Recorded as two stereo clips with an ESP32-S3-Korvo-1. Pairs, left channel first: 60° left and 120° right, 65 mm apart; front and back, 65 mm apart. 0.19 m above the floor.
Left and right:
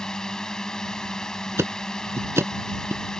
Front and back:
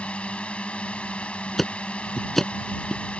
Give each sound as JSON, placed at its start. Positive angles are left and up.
{"t": 0.0, "sound": "a drone", "azimuth_deg": 5}
{"t": 1.6, "sound": "ticking", "azimuth_deg": -85}